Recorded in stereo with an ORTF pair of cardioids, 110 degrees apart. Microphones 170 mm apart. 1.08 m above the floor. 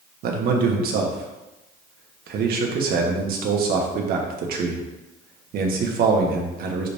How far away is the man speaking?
About 1.4 m.